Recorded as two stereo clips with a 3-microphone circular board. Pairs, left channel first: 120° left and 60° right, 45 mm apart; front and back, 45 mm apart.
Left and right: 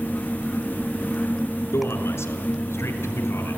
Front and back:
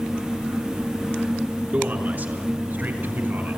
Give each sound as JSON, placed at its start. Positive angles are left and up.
{"t": 1.7, "sound": "a man speaking", "azimuth_deg": 135, "distance_m": 4.0}